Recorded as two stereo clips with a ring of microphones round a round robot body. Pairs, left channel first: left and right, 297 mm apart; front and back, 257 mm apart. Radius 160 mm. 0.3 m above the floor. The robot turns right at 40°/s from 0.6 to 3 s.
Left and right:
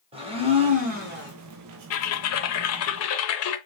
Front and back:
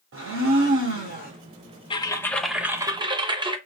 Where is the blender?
155° right, 1.3 m; by 1.3 s 130° right, 1.3 m.